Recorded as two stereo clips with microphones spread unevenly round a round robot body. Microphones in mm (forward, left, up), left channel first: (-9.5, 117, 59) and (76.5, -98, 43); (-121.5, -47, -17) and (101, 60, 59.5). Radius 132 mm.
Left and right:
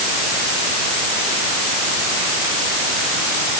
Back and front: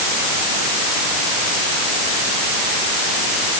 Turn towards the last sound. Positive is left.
No sound to turn to.